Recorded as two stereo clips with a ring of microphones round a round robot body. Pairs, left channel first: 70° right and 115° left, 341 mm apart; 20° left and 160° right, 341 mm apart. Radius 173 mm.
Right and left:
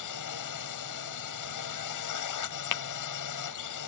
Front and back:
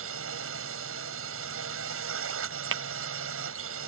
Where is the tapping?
105° right.